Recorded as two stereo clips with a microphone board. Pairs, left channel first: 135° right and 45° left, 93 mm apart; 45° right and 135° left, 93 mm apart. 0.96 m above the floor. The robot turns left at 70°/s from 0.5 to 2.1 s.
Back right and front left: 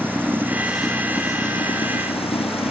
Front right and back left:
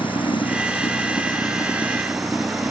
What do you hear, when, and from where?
0.0 s running water: 25° right; by 2.7 s 135° right